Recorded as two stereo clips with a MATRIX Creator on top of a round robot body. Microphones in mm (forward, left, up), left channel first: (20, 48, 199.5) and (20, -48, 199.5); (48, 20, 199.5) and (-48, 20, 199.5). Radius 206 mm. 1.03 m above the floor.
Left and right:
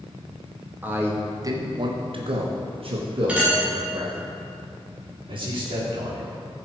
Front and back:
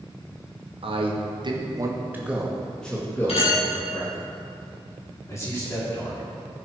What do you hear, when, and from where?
0.8 s a man speaking: 160° right, 2.5 m; by 4.2 s 50° right, 3.5 m
3.3 s a clink: 10° right, 5 m
5.3 s a man speaking: 60° right, 3.5 m